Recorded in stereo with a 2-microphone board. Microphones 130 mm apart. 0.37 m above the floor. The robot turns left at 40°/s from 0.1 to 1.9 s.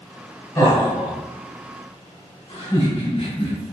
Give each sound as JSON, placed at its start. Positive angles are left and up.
{"t": 0.6, "sound": "laughter", "side_deg": 25, "distance_m": 1.2}